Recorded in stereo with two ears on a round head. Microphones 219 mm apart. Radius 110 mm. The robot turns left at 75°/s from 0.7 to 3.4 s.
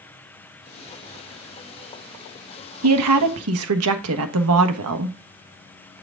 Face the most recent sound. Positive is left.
turn(degrees=-110)